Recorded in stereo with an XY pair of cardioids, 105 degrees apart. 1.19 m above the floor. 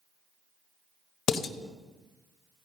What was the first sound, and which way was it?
Dishes clattering, 70° left.